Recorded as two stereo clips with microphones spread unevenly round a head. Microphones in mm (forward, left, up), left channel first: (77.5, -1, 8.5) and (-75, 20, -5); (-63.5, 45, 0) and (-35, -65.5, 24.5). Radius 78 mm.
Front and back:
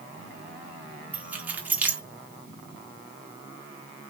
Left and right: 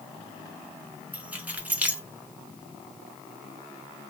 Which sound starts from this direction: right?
Keys jangling, at 1.1 s.